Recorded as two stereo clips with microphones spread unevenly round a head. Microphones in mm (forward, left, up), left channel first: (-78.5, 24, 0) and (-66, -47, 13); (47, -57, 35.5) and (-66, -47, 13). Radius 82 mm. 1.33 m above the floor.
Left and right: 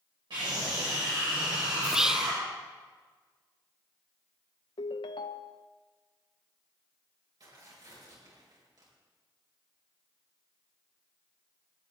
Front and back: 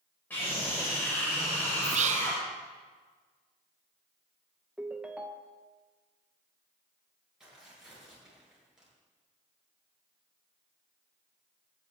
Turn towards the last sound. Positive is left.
turn(degrees=-100)